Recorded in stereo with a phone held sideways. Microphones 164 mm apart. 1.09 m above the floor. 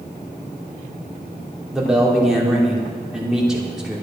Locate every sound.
1.7 s a man speaking: 5° right (ahead or behind), 3 m